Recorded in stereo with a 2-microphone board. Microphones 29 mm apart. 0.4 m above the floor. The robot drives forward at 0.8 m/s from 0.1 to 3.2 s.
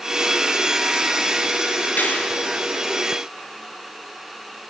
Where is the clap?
80° left, 6 m.